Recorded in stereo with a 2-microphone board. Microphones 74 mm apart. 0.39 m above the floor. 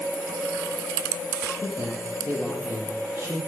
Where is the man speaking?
30° right (ahead or behind), 9 m.